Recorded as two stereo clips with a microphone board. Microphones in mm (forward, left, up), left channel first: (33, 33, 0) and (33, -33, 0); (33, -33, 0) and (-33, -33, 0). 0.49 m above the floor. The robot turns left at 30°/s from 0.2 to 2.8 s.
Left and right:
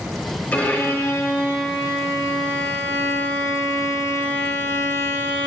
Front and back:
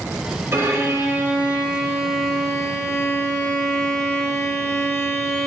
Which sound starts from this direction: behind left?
A violin, at 0.5 s.